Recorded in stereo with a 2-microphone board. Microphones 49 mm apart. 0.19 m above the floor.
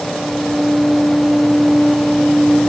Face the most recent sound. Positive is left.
No sound to turn to.